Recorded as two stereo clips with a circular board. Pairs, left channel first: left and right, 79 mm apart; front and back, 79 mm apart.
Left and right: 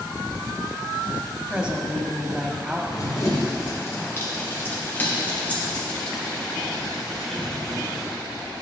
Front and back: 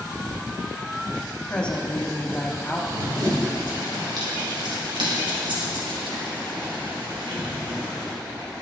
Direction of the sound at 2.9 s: 140° left.